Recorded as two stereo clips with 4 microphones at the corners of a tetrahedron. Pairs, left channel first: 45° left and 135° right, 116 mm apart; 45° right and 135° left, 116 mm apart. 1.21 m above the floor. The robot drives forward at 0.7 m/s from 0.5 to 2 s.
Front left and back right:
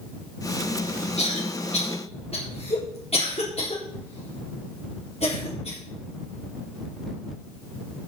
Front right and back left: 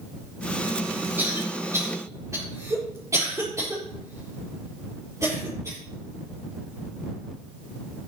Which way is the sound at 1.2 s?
65° left.